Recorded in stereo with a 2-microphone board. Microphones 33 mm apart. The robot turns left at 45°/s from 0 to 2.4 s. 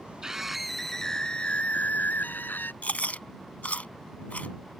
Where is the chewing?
50° left (ahead or behind).